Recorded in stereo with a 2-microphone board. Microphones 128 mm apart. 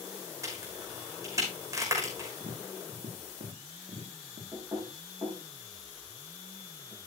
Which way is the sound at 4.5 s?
30° right (ahead or behind).